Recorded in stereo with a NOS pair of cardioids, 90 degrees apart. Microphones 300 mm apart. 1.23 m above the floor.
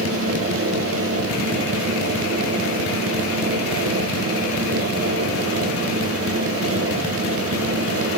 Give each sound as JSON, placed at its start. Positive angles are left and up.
{"t": 0.0, "sound": "a fan", "azimuth_deg": -50, "distance_m": 1.0}